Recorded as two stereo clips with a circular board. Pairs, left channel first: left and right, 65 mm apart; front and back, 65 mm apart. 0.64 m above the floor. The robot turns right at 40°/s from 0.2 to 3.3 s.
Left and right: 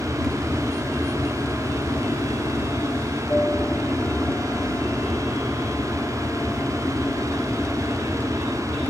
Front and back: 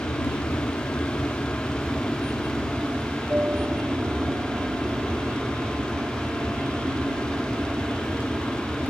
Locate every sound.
0.0 s an aircraft: 10° left; by 8.9 s 130° left